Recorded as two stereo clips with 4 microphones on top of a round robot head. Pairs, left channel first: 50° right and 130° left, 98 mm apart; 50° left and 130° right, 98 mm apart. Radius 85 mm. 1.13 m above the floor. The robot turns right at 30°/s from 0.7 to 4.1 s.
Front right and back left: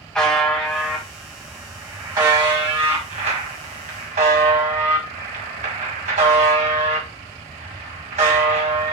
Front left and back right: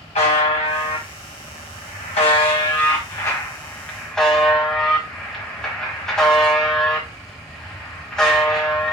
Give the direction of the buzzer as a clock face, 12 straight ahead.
11 o'clock.